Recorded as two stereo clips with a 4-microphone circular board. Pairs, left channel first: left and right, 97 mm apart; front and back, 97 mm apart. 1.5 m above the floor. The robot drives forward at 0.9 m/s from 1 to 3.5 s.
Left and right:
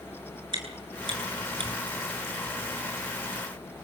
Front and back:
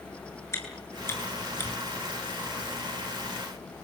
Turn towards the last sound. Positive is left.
turn(degrees=-80)